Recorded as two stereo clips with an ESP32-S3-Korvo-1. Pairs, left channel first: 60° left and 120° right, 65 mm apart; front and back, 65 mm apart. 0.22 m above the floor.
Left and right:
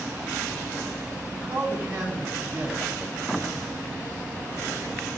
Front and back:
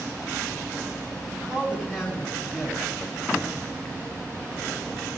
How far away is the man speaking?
About 2 m.